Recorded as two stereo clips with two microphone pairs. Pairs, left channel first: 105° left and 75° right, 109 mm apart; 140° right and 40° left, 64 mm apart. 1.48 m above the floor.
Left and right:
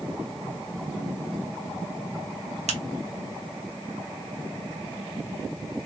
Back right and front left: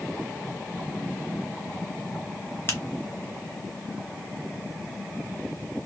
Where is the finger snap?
85° right, 0.8 m.